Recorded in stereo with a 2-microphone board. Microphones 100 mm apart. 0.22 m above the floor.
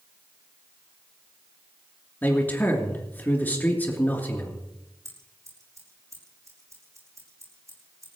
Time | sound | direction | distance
2.2 | a man speaking | 20° left (ahead or behind) | 3 m
5.0 | scissors | 30° right (ahead or behind) | 6 m